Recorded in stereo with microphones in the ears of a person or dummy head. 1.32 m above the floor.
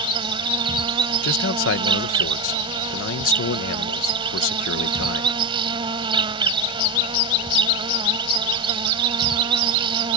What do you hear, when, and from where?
0.0 s an insect: 30° right (ahead or behind)
1.2 s a man speaking: 80° left